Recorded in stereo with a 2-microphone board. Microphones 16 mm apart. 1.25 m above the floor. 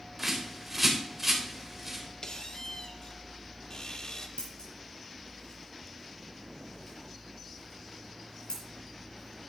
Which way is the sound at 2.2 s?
50° left (ahead or behind).